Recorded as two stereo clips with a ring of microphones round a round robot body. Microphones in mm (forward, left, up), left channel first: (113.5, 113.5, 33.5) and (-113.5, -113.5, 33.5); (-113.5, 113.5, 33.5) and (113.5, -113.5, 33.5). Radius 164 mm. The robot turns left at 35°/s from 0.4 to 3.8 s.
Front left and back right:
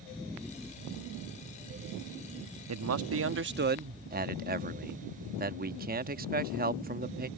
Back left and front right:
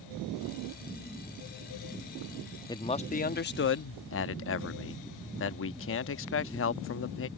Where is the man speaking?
150° right; by 7.3 s 170° left.